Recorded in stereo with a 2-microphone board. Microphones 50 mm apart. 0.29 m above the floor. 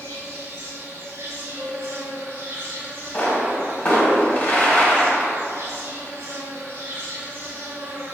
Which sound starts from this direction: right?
An insect, at 0.0 s.